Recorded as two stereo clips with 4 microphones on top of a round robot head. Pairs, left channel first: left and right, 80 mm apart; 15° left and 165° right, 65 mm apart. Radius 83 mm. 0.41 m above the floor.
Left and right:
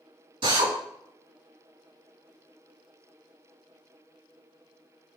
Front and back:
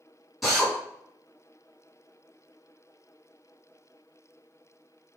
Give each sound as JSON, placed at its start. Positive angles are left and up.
{"t": 0.4, "sound": "a drill", "azimuth_deg": -80, "distance_m": 4.5}